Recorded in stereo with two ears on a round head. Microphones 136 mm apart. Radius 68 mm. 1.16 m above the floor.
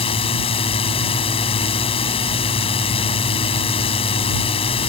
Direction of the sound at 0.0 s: 35° left (ahead or behind).